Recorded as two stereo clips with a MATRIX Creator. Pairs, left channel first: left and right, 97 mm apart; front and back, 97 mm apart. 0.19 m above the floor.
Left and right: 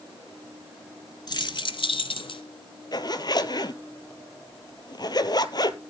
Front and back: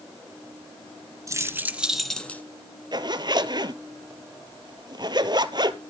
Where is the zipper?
135° left, 0.8 m.